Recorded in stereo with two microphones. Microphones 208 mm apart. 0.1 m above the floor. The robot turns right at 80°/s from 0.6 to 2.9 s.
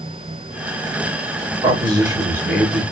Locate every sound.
1.6 s a man speaking: 25° right (ahead or behind), 1.8 m; by 2.8 s 5° left (ahead or behind), 1.8 m